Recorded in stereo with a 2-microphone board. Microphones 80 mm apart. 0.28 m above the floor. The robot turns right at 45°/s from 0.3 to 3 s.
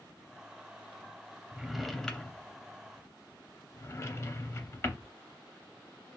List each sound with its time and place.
1.5 s a drawer: 10° right (ahead or behind), 0.5 m; by 5.0 s 35° left (ahead or behind), 0.5 m